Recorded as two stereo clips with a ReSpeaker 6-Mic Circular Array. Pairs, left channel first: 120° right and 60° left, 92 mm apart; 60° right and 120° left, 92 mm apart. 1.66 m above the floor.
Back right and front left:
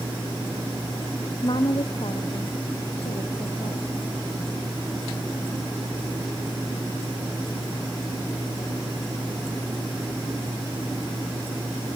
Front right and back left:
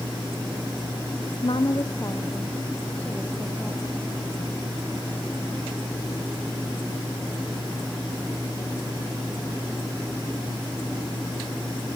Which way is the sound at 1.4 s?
85° right.